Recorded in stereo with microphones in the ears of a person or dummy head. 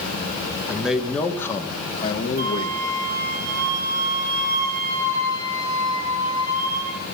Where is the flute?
35° right (ahead or behind), 2.5 m.